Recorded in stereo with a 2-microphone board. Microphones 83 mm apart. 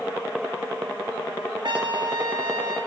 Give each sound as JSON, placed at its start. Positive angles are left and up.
{"t": 1.6, "sound": "a trumpet", "side_deg": -65, "distance_m": 1.4}